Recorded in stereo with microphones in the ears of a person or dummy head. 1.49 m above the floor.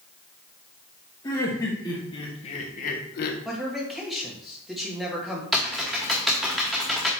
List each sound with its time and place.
1.2 s laughter: 15° left (ahead or behind), 1.9 m; by 3.4 s 55° left (ahead or behind), 1.0 m
3.5 s a man speaking: centre (ahead or behind), 1.8 m
5.5 s typing on a keyboard: centre (ahead or behind), 0.8 m